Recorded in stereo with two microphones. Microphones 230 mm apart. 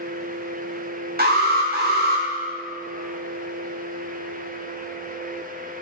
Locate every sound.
1.2 s an alarm: 45° right (ahead or behind), 0.7 m